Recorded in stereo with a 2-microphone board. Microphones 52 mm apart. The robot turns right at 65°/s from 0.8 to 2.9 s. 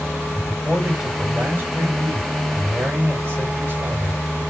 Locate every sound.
0.3 s a man speaking: straight behind, 3.5 m; by 4.2 s 45° right, 3.5 m